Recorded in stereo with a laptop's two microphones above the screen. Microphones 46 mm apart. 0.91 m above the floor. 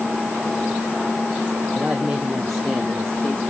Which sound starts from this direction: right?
A woman speaking, at 1.8 s.